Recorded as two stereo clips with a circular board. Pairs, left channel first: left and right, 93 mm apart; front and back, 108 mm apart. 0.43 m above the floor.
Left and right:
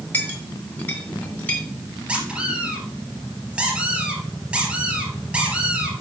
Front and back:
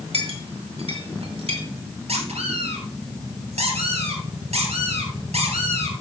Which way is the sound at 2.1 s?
170° right.